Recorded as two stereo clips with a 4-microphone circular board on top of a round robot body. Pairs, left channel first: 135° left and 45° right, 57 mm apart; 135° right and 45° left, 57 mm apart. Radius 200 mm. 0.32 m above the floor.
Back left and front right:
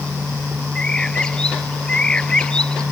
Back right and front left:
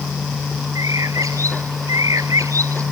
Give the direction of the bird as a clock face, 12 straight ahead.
10 o'clock.